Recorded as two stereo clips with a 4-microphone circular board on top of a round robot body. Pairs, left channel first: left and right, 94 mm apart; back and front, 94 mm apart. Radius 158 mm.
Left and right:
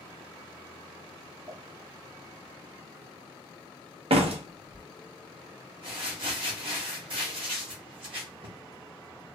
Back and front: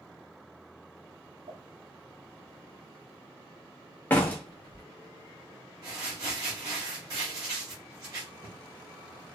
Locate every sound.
1.5 s a pop: 15° right, 0.7 m
4.1 s a door slam: 110° right, 0.5 m
5.8 s crumpling: 55° right, 0.7 m